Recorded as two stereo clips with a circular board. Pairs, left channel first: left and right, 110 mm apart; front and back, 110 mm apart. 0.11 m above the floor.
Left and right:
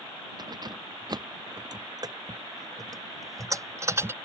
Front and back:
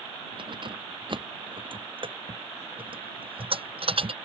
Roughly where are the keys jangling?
Behind right.